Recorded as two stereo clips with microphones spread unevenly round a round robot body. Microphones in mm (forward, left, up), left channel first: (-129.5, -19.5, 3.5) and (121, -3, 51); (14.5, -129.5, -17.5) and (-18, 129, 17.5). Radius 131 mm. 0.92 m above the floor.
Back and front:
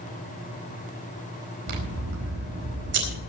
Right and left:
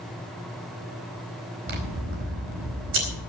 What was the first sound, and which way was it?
Scissors, 55° left.